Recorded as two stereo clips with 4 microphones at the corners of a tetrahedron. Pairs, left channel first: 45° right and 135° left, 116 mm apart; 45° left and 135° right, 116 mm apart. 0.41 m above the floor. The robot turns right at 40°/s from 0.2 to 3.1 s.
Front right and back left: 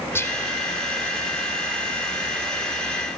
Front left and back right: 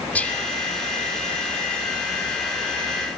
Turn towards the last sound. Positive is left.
turn(degrees=105)